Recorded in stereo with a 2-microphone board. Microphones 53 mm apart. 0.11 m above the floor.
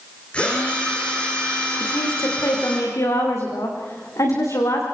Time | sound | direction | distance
0.3 | a drill | 20° left (ahead or behind) | 7 m
1.8 | a woman speaking | 80° left | 6.5 m